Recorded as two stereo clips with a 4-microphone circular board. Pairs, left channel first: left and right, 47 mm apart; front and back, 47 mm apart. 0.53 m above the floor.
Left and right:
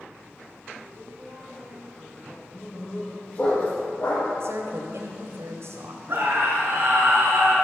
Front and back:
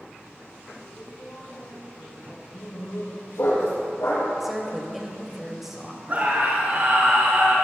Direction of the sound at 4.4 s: 95° right.